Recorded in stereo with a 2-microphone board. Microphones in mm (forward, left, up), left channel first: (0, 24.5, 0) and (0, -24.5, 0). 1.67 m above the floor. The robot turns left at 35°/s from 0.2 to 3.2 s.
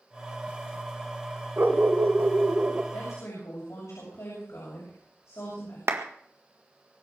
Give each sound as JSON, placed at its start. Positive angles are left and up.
{"t": 1.6, "sound": "a dog barking", "azimuth_deg": -70, "distance_m": 1.9}
{"t": 2.9, "sound": "a woman speaking", "side_deg": 85, "distance_m": 7.0}
{"t": 5.9, "sound": "a clap", "side_deg": -65, "distance_m": 1.7}